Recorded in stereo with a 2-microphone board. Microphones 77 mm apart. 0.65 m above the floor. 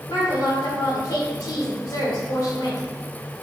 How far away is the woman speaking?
About 2 m.